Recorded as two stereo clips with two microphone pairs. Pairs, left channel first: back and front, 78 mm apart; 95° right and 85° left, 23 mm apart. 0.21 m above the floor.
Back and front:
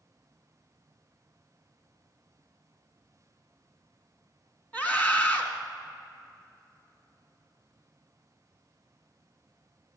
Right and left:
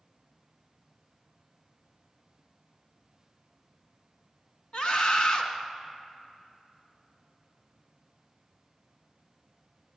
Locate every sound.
4.7 s a scream: 115° right, 1.7 m